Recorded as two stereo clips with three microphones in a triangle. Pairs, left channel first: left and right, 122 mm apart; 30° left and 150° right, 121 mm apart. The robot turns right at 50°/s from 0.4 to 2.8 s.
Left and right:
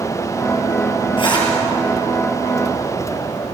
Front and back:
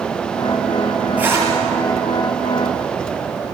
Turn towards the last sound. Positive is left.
turn(degrees=-145)